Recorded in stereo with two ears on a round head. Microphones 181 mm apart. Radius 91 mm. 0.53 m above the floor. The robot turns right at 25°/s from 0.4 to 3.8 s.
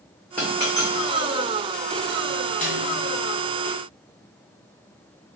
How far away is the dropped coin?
About 2.0 m.